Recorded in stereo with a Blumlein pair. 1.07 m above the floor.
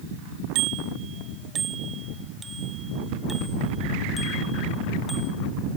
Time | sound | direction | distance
0.6 | a bicycle bell | 40° right | ?